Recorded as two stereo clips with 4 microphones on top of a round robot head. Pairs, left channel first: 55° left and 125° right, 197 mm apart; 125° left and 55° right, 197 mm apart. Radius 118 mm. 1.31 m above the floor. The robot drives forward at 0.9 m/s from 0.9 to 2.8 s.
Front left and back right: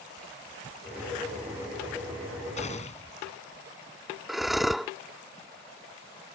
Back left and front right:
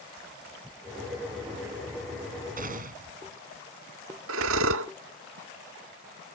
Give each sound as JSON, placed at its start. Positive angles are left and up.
{"t": 2.6, "sound": "a gunshot", "azimuth_deg": -5}
{"t": 4.3, "sound": "breathing", "azimuth_deg": -40}